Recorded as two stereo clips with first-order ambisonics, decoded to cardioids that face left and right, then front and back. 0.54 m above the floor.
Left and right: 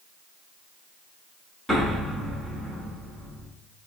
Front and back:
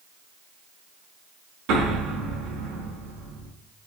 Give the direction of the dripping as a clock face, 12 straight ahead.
No dripping in this recording.